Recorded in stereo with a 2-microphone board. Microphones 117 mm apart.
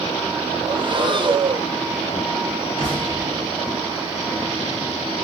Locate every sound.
0.6 s breathing: 45° right (ahead or behind), 0.5 m
2.8 s an explosion: 35° right (ahead or behind), 1.5 m